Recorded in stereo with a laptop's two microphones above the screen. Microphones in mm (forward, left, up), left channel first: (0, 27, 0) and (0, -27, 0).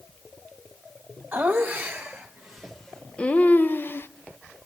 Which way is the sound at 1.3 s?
30° right (ahead or behind).